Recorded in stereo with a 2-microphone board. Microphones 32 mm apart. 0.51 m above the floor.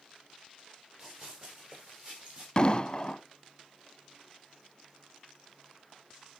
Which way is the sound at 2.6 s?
30° left (ahead or behind).